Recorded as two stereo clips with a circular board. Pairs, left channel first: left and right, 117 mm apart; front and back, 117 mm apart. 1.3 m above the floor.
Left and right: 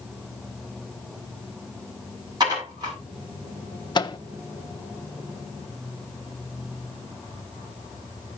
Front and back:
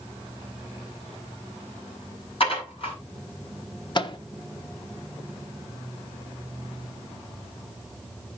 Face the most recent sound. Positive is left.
turn(degrees=45)